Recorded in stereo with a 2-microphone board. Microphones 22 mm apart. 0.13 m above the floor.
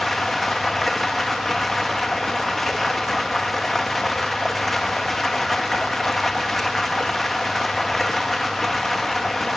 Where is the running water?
10° left (ahead or behind), 1.7 m.